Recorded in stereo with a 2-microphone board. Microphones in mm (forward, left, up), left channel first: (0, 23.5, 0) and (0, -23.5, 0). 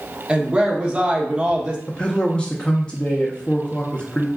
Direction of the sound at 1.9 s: 20° left (ahead or behind).